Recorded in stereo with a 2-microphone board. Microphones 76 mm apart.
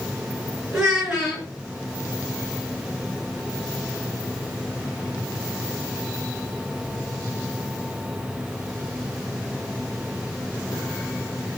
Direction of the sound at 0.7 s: 10° right (ahead or behind).